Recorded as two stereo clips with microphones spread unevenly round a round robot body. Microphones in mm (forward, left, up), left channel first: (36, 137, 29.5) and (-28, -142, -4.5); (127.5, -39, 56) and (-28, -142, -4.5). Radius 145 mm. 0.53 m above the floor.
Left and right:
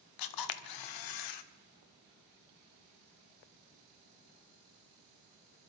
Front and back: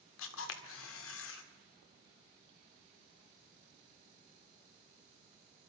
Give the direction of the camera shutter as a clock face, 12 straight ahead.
10 o'clock.